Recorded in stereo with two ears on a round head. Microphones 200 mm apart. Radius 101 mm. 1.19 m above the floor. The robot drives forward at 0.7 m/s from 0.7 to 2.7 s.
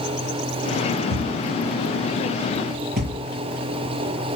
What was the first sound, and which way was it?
A thud, 55° right (ahead or behind).